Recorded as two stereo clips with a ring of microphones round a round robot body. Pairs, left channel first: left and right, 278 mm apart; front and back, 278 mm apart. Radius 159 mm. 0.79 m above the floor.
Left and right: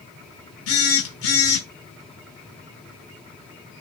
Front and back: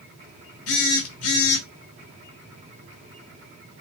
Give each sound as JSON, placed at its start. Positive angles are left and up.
{"t": 0.7, "sound": "a phone buzzing", "azimuth_deg": 45, "distance_m": 0.9}